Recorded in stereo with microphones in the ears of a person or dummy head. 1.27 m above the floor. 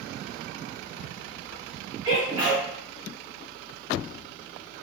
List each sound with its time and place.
2.0 s a sneeze: 15° right (ahead or behind), 0.5 m